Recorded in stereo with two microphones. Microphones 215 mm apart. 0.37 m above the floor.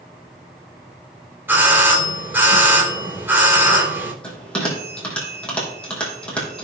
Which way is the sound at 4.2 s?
5° left (ahead or behind).